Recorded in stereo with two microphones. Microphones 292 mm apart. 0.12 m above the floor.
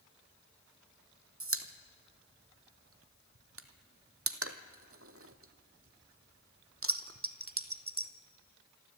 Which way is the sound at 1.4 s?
50° right (ahead or behind).